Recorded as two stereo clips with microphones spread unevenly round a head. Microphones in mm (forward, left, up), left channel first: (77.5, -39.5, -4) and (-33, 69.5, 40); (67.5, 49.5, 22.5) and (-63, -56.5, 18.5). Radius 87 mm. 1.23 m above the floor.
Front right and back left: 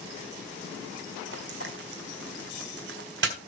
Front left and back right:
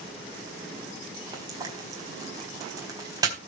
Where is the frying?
150° left, 4 m.